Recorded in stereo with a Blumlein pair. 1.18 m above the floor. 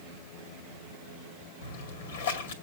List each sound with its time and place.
1.6 s a splash: 60° left, 2 m